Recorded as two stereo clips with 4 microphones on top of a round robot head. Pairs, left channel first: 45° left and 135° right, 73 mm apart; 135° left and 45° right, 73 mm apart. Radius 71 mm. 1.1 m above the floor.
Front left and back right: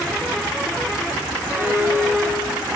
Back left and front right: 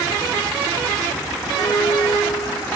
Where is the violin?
165° left, 4 m.